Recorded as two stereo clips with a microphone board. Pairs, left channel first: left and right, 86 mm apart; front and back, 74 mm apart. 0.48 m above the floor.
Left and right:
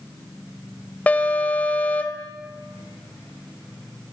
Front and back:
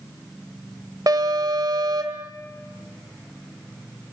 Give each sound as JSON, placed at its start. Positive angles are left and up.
{"t": 1.1, "sound": "an alarm", "azimuth_deg": 160, "distance_m": 1.6}